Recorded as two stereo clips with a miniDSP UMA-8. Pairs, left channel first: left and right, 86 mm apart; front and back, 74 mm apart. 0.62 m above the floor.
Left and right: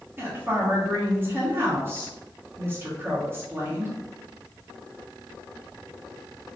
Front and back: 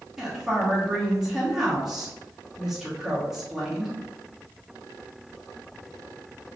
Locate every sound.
0.2 s a woman speaking: 100° right, 1.1 m